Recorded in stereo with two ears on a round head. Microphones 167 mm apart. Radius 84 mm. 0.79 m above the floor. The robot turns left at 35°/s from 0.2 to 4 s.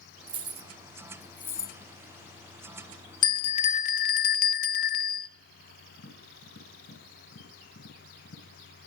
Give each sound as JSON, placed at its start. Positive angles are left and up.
{"t": 0.3, "sound": "keys jangling", "side_deg": -30, "distance_m": 0.6}
{"t": 3.2, "sound": "a bell", "side_deg": 25, "distance_m": 0.5}
{"t": 6.0, "sound": "tapping", "side_deg": 70, "distance_m": 5.5}